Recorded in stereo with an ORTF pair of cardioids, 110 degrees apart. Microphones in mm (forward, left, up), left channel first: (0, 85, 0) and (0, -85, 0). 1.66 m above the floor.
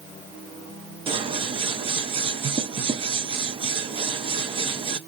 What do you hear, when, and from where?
1.1 s scissors: 30° right, 0.8 m